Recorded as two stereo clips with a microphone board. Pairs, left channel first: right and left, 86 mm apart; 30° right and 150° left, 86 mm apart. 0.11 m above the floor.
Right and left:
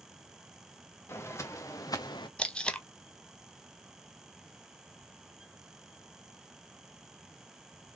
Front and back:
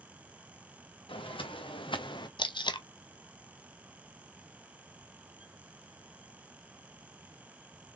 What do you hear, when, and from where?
1.1 s footsteps: 30° right, 1.5 m; by 2.3 s 60° right, 0.7 m
2.4 s tape being pulled: 10° right, 0.5 m